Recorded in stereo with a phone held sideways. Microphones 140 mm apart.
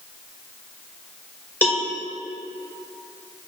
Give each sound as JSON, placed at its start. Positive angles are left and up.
{"t": 1.6, "sound": "a cowbell", "side_deg": 10, "distance_m": 1.5}